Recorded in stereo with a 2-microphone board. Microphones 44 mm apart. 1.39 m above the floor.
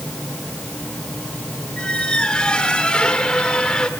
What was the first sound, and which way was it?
A squeak, 25° left (ahead or behind).